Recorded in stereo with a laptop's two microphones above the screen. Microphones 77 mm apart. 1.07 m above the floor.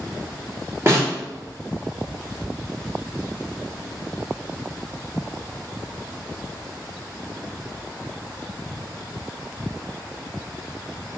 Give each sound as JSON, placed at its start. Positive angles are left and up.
{"t": 0.9, "sound": "a snare drum", "side_deg": -35, "distance_m": 1.5}